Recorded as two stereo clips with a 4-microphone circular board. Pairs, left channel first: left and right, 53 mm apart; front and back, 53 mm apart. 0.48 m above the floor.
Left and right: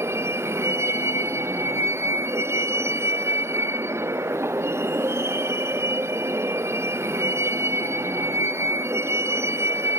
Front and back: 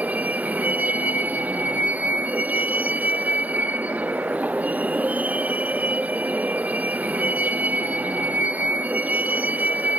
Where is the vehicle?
120° right.